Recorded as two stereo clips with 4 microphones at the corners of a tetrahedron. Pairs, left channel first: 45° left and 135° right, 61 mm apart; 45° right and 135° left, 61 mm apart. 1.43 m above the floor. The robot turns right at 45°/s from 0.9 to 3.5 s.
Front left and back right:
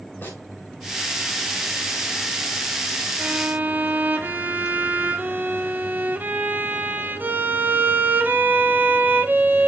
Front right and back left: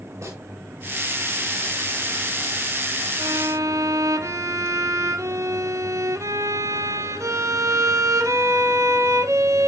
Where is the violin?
155° left, 1.0 m; by 9.7 s 165° left, 1.0 m.